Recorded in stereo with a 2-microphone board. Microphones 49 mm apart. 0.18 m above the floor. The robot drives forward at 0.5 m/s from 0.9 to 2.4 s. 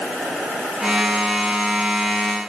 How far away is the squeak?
I don't hear a squeak.